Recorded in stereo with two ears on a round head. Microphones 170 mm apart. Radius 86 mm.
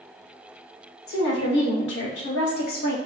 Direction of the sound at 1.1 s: 60° left (ahead or behind).